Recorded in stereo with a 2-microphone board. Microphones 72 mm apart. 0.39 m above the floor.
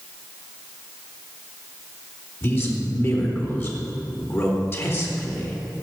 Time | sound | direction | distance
2.4 | a man speaking | 35° left (ahead or behind) | 3.5 m